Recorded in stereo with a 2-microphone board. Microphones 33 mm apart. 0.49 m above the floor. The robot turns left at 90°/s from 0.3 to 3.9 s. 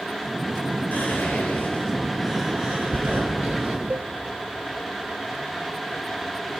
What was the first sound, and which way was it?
Whispering, 55° left (ahead or behind).